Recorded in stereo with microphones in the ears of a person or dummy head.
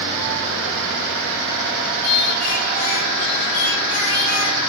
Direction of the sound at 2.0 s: 80° left.